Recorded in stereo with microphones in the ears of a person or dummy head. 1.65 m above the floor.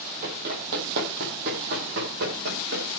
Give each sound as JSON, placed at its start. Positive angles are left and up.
{"t": 0.2, "sound": "running footsteps", "side_deg": -50, "distance_m": 2.5}